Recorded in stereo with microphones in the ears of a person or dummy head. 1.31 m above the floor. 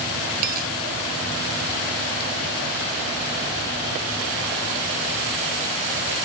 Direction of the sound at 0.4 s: 50° right (ahead or behind).